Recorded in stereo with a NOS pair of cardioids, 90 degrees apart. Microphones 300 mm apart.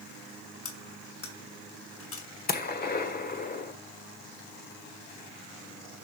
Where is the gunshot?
35° left, 1.7 m.